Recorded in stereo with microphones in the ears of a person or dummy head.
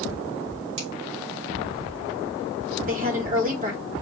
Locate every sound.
0.8 s a finger snap: 75° right (ahead or behind), 3 m
2.8 s a woman speaking: 45° right (ahead or behind), 1.2 m